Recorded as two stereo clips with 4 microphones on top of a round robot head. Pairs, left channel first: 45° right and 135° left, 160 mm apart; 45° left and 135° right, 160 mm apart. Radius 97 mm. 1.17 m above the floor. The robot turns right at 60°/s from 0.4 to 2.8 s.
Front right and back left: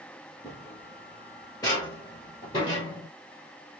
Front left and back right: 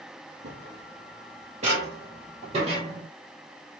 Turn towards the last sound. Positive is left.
turn(degrees=-100)